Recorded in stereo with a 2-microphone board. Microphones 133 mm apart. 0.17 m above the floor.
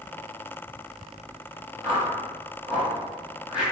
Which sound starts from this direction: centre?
A whoosh, at 1.8 s.